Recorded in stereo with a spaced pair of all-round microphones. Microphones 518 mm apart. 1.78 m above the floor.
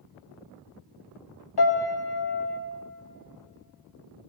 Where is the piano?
50° left (ahead or behind), 0.8 m.